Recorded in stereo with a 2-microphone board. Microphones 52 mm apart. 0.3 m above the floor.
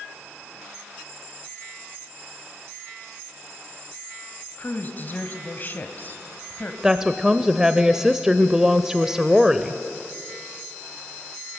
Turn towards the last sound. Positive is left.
turn(degrees=-10)  # may be behind; listen again after turning